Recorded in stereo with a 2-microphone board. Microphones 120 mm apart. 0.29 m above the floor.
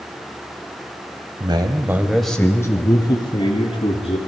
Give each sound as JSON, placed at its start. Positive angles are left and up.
{"t": 1.4, "sound": "a man speaking", "side_deg": -40, "distance_m": 1.7}